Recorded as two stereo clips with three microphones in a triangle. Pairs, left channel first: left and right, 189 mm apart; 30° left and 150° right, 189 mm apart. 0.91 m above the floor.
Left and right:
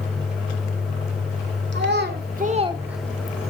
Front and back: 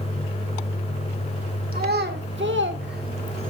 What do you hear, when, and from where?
1.7 s a child speaking: 115° right, 1.9 m; by 3.5 s 145° left, 1.3 m